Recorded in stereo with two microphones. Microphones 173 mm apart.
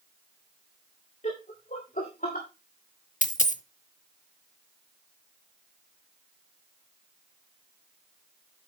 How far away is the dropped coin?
About 0.8 m.